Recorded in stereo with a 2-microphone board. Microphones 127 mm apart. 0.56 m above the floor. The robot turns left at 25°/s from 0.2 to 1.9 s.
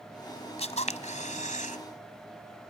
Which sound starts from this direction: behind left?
A camera shutter, at 0.6 s.